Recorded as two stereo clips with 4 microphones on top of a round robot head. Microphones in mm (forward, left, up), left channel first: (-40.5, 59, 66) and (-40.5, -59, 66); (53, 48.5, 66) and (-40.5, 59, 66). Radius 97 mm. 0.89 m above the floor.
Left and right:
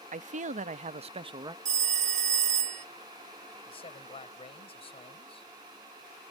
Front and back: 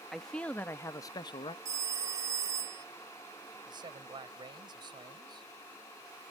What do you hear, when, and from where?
0.1 s a man speaking: 95° right; by 1.6 s 35° right
1.6 s a phone ringing: 120° right
3.7 s a man speaking: 135° left